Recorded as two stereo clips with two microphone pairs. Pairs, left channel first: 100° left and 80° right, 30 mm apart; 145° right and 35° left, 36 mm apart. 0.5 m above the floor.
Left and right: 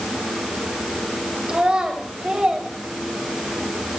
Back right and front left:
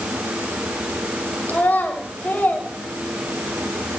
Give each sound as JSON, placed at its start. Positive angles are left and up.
{"t": 1.5, "sound": "a child speaking", "azimuth_deg": -135, "distance_m": 2.0}